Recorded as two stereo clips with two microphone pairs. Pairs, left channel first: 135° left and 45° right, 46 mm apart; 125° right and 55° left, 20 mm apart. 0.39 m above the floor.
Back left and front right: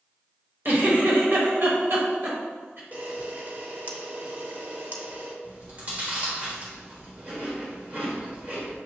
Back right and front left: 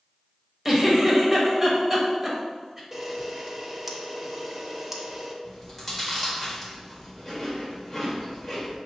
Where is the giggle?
25° right, 1.0 m.